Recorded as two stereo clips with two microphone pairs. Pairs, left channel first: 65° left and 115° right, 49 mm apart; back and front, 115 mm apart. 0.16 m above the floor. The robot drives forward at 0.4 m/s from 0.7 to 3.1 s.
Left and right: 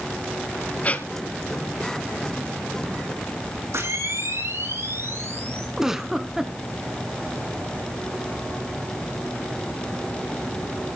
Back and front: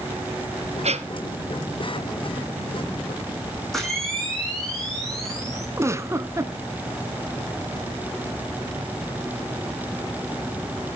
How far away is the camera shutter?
About 10 m.